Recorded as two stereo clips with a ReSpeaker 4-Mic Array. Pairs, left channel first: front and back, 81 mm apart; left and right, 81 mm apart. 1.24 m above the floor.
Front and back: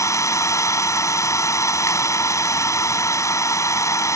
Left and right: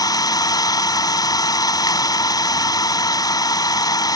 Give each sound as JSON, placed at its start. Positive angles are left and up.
{"t": 0.0, "sound": "an engine running", "azimuth_deg": 50}